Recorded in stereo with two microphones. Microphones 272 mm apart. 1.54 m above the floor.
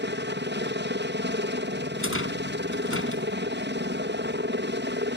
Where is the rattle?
50° left (ahead or behind).